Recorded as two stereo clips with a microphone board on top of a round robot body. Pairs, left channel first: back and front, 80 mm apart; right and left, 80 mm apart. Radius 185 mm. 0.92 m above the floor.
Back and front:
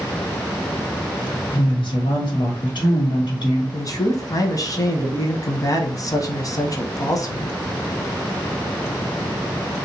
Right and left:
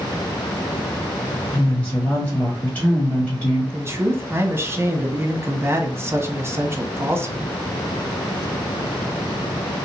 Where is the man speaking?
145° left, 1.2 m.